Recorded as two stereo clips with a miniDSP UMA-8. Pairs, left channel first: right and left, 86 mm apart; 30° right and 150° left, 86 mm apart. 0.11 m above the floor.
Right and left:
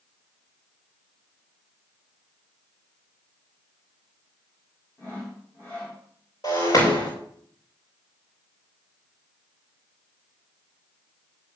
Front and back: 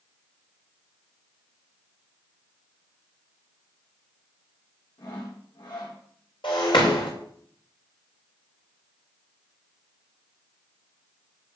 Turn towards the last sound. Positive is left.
turn(degrees=-45)